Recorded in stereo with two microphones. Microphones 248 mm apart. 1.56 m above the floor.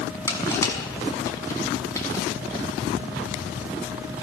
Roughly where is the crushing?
Centre.